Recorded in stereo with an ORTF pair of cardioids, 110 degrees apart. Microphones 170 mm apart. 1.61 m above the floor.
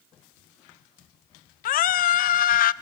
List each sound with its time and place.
1.6 s a scream: 60° left, 1.0 m